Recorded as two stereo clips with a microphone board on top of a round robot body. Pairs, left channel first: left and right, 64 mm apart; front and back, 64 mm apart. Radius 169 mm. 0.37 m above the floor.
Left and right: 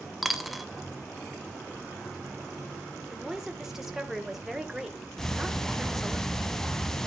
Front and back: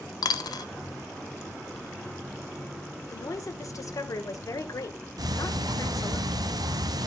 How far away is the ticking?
About 1.0 m.